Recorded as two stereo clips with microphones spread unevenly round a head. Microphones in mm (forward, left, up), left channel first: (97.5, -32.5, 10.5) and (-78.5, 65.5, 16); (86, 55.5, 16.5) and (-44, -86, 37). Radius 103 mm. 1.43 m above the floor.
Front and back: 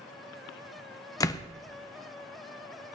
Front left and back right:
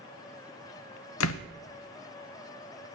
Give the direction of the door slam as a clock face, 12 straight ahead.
11 o'clock.